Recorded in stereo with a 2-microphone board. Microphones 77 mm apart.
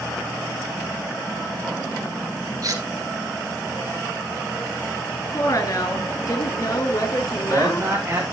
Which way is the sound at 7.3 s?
30° right (ahead or behind).